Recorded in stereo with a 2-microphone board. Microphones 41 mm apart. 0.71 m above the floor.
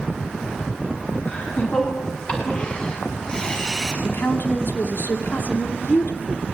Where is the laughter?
35° left (ahead or behind), 8 m; by 3.9 s 5° left (ahead or behind), 6 m.